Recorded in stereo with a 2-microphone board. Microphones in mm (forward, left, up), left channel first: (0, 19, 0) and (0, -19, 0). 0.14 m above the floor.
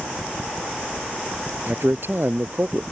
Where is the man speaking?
60° right (ahead or behind); by 2.8 s 65° right (ahead or behind).